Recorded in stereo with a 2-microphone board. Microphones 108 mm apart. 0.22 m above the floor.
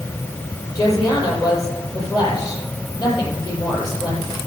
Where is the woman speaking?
40° left (ahead or behind), 7 m.